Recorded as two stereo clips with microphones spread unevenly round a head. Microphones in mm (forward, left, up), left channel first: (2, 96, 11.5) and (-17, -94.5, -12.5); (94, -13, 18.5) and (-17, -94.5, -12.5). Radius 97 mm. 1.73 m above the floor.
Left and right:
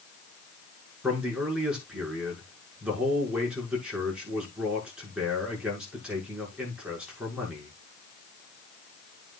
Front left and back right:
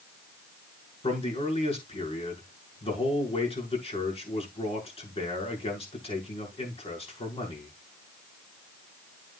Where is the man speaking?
10° right, 6.5 m.